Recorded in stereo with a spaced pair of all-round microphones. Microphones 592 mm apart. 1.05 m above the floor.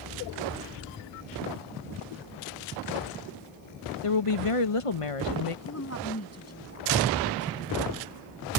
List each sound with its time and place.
4.0 s a woman speaking: 60° left (ahead or behind)
5.7 s a woman speaking: 25° left (ahead or behind)